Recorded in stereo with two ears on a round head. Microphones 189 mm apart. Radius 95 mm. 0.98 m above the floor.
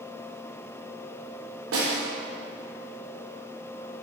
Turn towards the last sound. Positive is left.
turn(degrees=-75)  # may be behind; listen again after turning